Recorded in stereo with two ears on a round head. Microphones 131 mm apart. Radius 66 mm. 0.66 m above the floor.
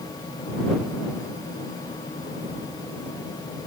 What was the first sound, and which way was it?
Only background noise.